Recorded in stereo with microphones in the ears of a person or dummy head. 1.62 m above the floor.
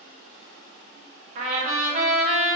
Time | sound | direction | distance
1.4 | a trumpet | 35° right (ahead or behind) | 1.6 m